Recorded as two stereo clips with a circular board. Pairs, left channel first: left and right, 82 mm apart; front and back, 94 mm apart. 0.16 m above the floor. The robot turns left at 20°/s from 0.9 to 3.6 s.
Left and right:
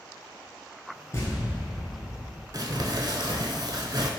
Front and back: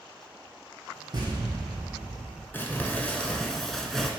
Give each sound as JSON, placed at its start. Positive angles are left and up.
{"t": 1.1, "sound": "an explosion", "azimuth_deg": 140, "distance_m": 1.1}
{"t": 2.5, "sound": "crumpling", "azimuth_deg": -65, "distance_m": 0.6}